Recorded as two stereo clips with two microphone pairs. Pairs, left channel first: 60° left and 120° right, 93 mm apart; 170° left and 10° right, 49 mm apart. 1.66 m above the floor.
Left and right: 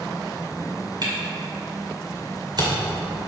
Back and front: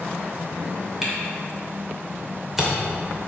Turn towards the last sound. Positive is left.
turn(degrees=-95)